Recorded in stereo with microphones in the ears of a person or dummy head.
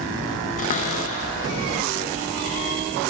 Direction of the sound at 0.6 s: 35° left (ahead or behind).